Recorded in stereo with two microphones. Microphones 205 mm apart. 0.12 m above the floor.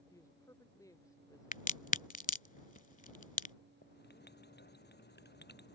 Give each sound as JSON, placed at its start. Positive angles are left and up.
{"t": 0.1, "sound": "a woman speaking", "side_deg": 15}
{"t": 1.5, "sound": "a crack", "side_deg": 40}
{"t": 3.8, "sound": "writing", "side_deg": 55}